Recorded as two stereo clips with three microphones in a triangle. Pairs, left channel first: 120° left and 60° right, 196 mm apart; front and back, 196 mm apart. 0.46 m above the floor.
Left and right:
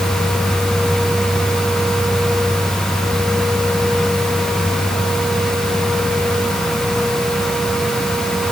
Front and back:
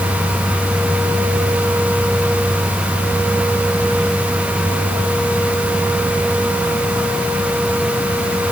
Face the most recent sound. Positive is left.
No sound to turn to.